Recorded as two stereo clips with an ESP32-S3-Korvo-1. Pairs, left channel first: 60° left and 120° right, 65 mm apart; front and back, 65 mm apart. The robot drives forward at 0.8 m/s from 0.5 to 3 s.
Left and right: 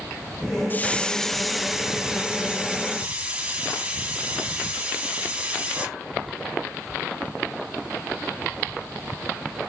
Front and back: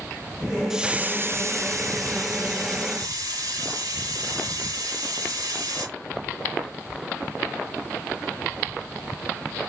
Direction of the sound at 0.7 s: 100° left.